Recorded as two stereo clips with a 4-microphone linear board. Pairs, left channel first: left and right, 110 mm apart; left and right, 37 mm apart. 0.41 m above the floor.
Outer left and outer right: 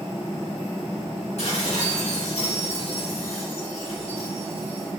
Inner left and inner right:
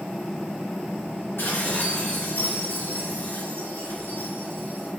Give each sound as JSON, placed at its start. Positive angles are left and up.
{"t": 1.4, "sound": "dishes clattering", "side_deg": 75, "distance_m": 3.0}